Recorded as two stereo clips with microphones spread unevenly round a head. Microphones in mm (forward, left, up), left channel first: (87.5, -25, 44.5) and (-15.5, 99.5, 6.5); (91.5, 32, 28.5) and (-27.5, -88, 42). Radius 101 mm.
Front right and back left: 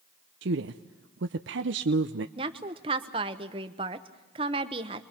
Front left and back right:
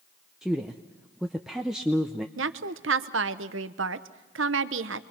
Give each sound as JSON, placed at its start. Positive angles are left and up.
{"t": 0.4, "sound": "a woman speaking", "azimuth_deg": 140, "distance_m": 0.6}
{"t": 2.4, "sound": "a woman speaking", "azimuth_deg": -160, "distance_m": 0.9}